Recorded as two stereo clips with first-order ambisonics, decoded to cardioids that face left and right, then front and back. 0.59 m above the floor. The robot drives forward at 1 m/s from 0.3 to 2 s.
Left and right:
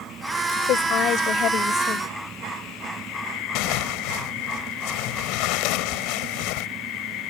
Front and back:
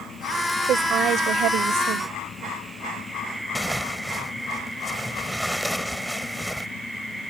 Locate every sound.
0.7 s a woman speaking: 125° left; by 2.1 s 145° left
3.5 s tearing paper: 85° left